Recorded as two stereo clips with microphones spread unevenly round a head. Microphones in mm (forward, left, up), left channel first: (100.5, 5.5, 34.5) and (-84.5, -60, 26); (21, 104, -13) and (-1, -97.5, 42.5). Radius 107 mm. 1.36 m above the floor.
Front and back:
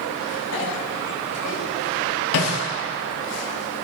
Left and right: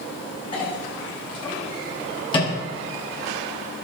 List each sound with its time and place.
0.5 s a clink: 15° left, 8 m